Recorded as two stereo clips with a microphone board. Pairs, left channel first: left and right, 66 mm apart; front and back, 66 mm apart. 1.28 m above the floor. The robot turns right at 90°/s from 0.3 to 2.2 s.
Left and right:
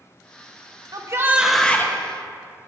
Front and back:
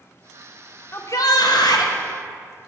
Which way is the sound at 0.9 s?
55° right.